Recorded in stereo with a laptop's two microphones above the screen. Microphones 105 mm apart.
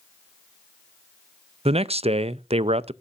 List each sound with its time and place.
1.6 s a man speaking: 70° right (ahead or behind), 0.5 m